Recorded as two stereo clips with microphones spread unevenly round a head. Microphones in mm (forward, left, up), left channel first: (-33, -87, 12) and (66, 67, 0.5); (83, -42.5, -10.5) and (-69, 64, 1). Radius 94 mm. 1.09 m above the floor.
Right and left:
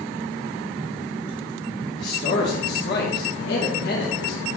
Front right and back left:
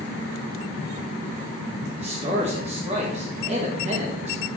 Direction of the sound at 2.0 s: 155° right.